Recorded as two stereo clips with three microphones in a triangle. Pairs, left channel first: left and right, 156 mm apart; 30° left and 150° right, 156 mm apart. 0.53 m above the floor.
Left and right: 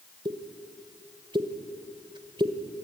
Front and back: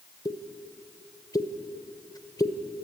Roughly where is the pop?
Ahead right.